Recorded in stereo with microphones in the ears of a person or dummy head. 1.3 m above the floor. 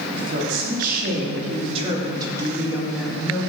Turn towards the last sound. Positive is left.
turn(degrees=10)  # may be behind; listen again after turning